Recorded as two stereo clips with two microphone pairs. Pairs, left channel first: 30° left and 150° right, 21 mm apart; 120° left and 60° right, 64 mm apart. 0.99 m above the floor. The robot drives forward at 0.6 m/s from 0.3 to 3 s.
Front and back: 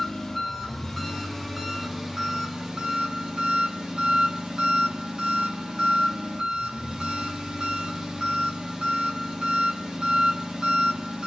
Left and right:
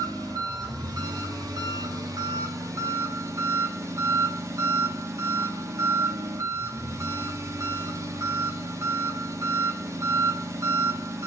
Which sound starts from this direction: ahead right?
An engine running, at 0.0 s.